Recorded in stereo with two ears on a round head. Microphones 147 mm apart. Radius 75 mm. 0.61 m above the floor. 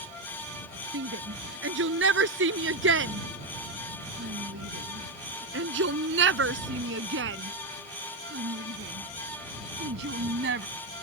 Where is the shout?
85° right; by 10.7 s 75° right (ahead or behind).